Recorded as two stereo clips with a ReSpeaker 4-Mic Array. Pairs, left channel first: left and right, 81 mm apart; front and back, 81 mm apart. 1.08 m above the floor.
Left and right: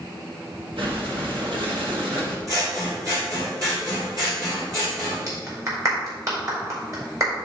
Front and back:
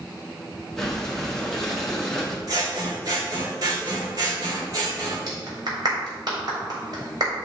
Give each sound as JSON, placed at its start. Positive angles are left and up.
{"t": 0.8, "sound": "breathing", "azimuth_deg": -90, "distance_m": 1.8}
{"t": 2.5, "sound": "scissors", "azimuth_deg": -135, "distance_m": 3.0}
{"t": 5.3, "sound": "a clap", "azimuth_deg": -140, "distance_m": 3.5}